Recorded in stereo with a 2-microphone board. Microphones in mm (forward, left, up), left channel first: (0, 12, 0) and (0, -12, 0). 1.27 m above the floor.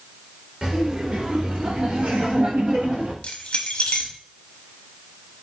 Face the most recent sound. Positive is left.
turn(degrees=50)  # may be behind; listen again after turning